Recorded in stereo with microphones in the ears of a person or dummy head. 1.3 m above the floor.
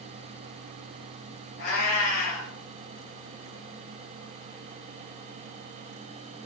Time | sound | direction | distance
1.6 | a cat meowing | 50° left (ahead or behind) | 0.8 m